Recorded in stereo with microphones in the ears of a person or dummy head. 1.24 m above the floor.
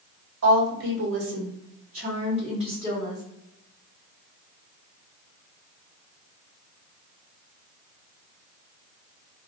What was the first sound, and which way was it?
A woman speaking, 70° right (ahead or behind).